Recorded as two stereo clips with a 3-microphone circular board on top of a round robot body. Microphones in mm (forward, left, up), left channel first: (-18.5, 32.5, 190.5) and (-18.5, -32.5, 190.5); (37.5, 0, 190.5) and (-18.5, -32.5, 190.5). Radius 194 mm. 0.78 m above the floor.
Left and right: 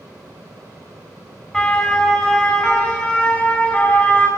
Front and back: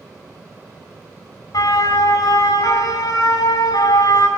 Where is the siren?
10° left, 8.5 m; by 4.3 s 15° left, 8 m.